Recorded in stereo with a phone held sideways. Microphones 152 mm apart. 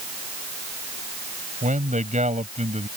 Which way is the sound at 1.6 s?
55° right (ahead or behind).